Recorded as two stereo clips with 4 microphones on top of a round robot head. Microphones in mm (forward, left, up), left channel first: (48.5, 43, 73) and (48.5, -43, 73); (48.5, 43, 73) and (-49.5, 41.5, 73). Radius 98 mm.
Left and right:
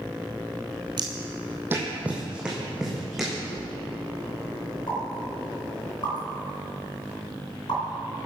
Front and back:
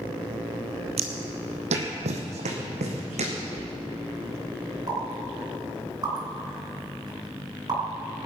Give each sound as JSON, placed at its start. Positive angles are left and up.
{"t": 1.0, "sound": "footsteps", "azimuth_deg": -145, "distance_m": 1.1}
{"t": 3.5, "sound": "a thud", "azimuth_deg": 115, "distance_m": 3.5}
{"t": 4.9, "sound": "a pop", "azimuth_deg": 135, "distance_m": 3.5}